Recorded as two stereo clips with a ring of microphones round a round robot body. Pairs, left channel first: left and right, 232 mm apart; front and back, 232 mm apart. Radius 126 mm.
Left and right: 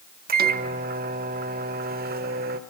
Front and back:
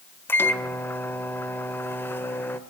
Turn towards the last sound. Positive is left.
turn(degrees=-75)